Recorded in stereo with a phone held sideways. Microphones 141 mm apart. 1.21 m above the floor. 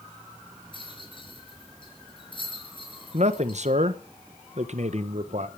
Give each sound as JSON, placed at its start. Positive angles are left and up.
{"t": 0.7, "sound": "a rattle", "side_deg": 35, "distance_m": 4.5}
{"t": 3.1, "sound": "a man speaking", "side_deg": -55, "distance_m": 1.2}